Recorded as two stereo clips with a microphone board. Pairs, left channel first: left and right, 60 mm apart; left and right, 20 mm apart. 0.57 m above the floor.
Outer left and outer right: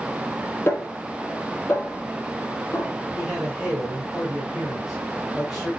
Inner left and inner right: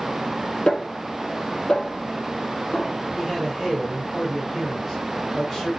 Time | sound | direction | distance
0.7 | a snare drum | 45° left (ahead or behind) | 5.5 m
3.1 | a man speaking | 5° right (ahead or behind) | 3.5 m